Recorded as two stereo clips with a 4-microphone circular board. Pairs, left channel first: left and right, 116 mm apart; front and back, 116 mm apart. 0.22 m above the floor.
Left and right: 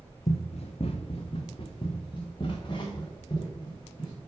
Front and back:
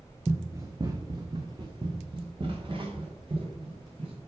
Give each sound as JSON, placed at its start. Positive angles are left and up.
{"t": 0.3, "sound": "running footsteps", "azimuth_deg": 110, "distance_m": 0.7}